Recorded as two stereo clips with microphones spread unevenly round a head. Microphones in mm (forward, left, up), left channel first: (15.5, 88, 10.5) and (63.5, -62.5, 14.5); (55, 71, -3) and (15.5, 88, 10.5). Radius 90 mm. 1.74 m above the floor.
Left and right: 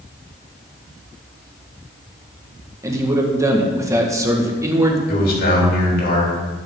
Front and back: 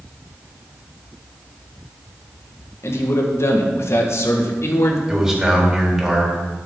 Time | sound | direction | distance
2.8 | a man speaking | straight ahead | 1.8 m
5.1 | a man speaking | 80° left | 3.5 m